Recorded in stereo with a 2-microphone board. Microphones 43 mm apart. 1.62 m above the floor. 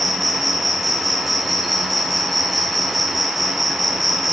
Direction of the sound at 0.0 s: Centre (ahead or behind).